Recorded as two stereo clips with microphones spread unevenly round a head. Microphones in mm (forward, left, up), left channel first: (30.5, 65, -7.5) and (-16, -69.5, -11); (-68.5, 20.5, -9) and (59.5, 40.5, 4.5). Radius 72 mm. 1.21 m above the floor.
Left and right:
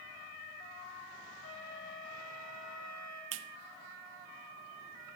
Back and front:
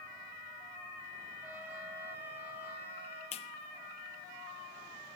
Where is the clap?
115° right, 0.6 m.